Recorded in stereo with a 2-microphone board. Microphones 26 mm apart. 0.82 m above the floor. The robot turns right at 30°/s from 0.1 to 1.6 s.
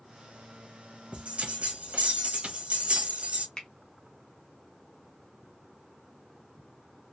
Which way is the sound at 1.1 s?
45° right (ahead or behind).